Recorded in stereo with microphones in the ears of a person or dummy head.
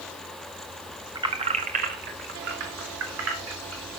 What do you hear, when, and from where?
1.1 s keys jangling: 20° right (ahead or behind), 1.8 m; by 3.9 s 85° right, 4 m